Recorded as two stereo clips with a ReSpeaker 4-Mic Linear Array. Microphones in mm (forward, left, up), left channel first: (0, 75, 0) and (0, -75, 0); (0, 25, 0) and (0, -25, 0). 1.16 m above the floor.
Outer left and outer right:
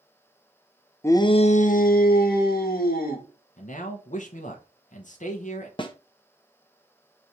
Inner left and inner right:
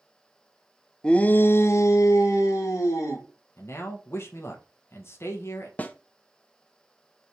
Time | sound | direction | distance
1.0 | a shout | 15° left (ahead or behind) | 0.5 m
3.6 | a man speaking | 55° left (ahead or behind) | 0.7 m
5.8 | a snare drum | 30° left (ahead or behind) | 0.5 m